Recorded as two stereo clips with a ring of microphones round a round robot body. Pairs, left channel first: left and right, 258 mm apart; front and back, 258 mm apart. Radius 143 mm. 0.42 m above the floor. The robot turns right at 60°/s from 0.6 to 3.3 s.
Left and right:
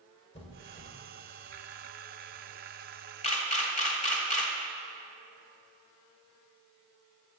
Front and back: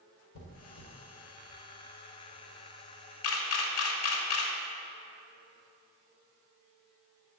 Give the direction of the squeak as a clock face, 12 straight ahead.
11 o'clock.